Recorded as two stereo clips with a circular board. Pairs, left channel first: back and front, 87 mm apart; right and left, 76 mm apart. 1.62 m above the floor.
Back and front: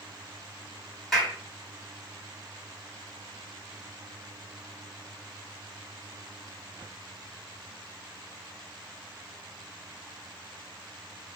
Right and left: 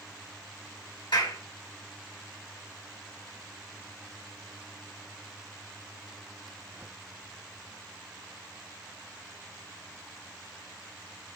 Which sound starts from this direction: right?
A clap, at 1.1 s.